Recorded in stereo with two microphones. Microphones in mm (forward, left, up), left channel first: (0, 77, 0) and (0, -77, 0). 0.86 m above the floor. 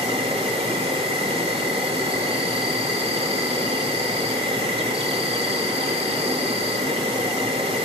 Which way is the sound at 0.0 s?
35° right (ahead or behind).